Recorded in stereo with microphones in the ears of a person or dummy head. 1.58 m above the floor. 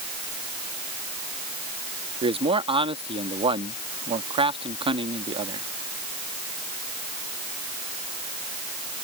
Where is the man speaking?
30° right (ahead or behind).